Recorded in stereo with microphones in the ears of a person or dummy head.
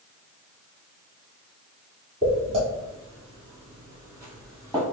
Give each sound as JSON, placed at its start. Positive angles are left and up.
{"t": 2.2, "sound": "footsteps", "side_deg": -35, "distance_m": 2.0}